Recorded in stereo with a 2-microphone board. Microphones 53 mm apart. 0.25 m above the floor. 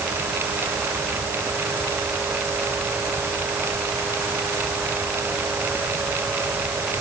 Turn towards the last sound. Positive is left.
No sound to turn to.